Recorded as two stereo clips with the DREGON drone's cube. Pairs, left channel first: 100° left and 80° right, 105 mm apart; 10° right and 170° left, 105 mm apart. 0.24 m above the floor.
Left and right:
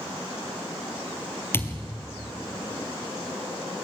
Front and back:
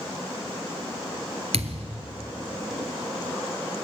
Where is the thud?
170° left, 2.5 m.